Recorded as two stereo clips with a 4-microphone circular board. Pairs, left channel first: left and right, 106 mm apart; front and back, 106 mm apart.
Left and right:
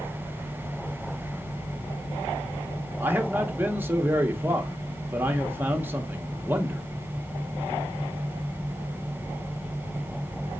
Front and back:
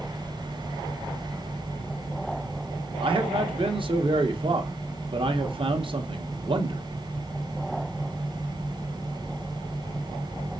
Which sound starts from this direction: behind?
A man speaking, at 3.0 s.